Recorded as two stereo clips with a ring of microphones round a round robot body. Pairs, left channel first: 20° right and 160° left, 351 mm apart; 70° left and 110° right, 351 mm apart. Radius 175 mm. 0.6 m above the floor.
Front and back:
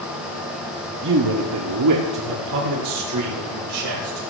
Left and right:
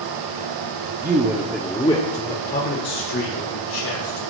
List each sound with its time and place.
1.0 s a man speaking: 165° right, 1.2 m; by 4.2 s 115° left, 3.5 m